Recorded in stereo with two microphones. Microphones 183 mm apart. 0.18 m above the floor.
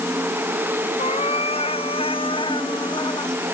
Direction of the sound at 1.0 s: 35° left (ahead or behind).